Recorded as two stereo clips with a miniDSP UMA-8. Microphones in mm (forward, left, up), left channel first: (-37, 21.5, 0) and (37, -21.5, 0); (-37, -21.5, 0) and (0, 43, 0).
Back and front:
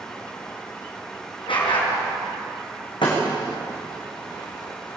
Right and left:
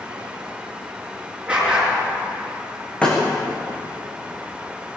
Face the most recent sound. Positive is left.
turn(degrees=165)